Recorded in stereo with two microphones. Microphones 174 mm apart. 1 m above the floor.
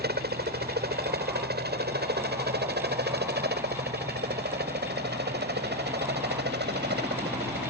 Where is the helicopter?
65° right (ahead or behind); by 7.7 s 75° right (ahead or behind).